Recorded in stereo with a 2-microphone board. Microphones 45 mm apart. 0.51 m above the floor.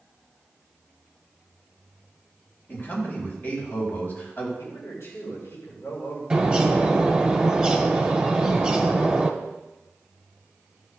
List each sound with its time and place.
2.7 s a man speaking: 40° left (ahead or behind), 4 m
4.6 s a man speaking: 65° left (ahead or behind), 5 m
6.3 s a bird: 15° right (ahead or behind), 1.6 m